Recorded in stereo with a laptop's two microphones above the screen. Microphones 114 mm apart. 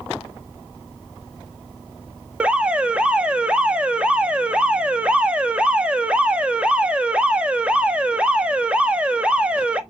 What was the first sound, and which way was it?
An alarm, 10° right (ahead or behind).